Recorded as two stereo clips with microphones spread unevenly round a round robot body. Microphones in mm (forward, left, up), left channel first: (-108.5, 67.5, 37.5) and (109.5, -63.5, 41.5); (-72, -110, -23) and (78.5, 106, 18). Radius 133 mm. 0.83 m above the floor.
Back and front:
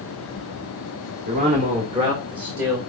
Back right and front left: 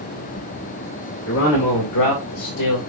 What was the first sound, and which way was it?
A man speaking, 90° right.